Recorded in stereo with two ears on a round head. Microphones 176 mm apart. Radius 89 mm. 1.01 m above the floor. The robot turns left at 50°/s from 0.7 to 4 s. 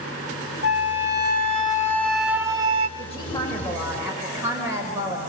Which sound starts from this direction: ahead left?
A woman speaking, at 3.0 s.